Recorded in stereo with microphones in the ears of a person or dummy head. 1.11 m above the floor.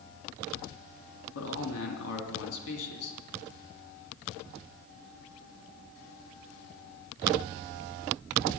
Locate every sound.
1.4 s a man speaking: 75° left (ahead or behind), 2.5 m